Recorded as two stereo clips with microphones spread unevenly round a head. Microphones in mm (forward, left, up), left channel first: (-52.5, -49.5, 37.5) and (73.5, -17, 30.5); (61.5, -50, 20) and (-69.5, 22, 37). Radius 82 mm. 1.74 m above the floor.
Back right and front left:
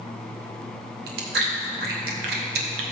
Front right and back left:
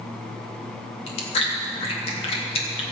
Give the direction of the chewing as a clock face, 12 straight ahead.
11 o'clock.